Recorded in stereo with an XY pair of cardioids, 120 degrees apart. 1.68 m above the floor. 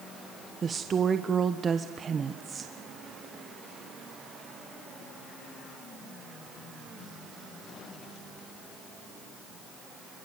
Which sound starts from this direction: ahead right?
A woman speaking, at 0.6 s.